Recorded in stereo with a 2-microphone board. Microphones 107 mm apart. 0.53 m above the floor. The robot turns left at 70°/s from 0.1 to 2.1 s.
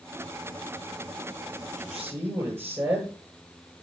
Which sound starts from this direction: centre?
A man speaking, at 1.7 s.